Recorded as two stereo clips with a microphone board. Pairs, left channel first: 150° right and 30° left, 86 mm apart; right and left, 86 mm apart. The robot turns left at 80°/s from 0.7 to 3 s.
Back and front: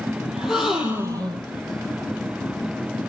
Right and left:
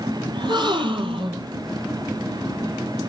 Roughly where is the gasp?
Behind left.